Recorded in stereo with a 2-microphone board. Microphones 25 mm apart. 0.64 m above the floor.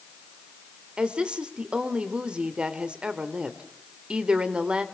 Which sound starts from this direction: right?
A woman speaking, at 1.0 s.